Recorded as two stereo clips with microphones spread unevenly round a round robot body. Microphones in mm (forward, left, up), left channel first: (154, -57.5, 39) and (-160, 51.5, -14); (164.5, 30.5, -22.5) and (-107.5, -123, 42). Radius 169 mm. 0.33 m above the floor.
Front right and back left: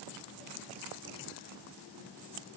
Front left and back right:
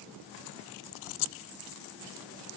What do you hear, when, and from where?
Only background noise.